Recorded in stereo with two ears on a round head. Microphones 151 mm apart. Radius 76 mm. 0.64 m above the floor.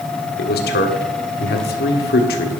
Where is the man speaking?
65° left (ahead or behind), 1.7 m.